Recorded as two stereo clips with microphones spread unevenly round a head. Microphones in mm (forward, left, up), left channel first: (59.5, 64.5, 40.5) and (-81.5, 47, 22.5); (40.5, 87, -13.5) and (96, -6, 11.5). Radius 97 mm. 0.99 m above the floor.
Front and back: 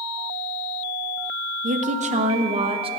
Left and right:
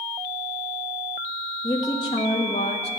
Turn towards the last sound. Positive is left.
turn(degrees=140)